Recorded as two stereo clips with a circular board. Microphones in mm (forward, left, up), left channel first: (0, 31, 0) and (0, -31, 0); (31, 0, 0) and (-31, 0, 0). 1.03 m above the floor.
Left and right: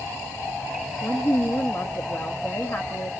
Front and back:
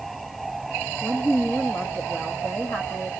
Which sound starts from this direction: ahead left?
A woman speaking, at 1.0 s.